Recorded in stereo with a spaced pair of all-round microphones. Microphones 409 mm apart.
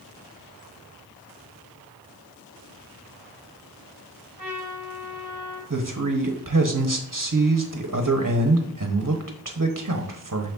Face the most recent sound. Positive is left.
turn(degrees=-40)  # may be behind; listen again after turning